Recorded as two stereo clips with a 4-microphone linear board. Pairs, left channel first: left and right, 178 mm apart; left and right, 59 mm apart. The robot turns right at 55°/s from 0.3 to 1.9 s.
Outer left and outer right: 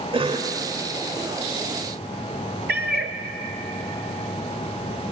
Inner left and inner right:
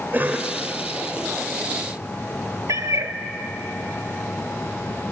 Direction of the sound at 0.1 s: 30° right (ahead or behind).